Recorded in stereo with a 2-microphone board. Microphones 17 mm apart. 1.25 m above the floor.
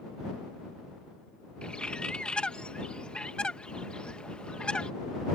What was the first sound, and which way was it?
A bird, 60° left (ahead or behind).